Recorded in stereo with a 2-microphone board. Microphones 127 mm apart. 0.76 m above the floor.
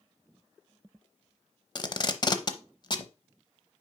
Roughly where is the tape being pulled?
Left.